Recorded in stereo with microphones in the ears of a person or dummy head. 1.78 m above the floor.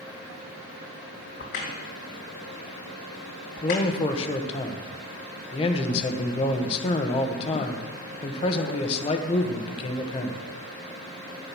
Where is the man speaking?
30° left (ahead or behind), 1.4 m.